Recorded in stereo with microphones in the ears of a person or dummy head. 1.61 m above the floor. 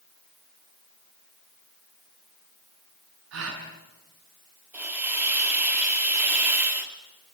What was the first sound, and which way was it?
A gasp, 75° right (ahead or behind).